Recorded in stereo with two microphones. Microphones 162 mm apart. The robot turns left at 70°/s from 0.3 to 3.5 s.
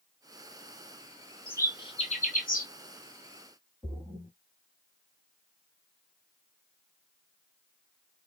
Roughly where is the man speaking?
No man speaking in this recording.